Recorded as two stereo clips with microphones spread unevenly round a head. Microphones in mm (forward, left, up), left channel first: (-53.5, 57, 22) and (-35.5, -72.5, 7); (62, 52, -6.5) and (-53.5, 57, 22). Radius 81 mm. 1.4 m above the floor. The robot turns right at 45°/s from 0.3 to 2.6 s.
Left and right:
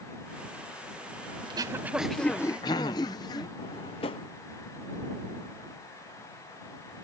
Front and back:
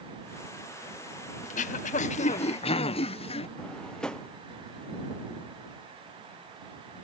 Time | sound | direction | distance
1.4 | throat clearing | 25° right | ?
3.6 | a drawer | 95° left | ?